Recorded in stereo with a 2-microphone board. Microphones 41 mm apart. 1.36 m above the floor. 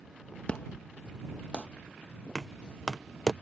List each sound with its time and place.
0.5 s an explosion: 30° left (ahead or behind)
2.4 s knocking: 10° left (ahead or behind)